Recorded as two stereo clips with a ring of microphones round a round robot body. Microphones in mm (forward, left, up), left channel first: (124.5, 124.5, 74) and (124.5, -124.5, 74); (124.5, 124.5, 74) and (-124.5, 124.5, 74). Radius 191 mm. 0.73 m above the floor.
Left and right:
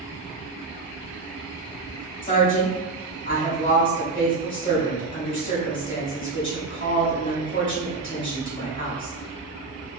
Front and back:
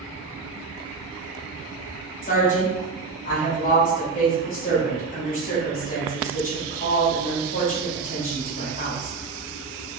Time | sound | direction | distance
2.2 | a woman speaking | 55° left | 1.8 m